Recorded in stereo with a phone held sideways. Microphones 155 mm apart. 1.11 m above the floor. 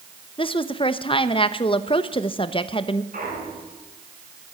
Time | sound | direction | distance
0.4 | a woman speaking | 35° left (ahead or behind) | 1.0 m
3.1 | a clunk | 65° right (ahead or behind) | 5.5 m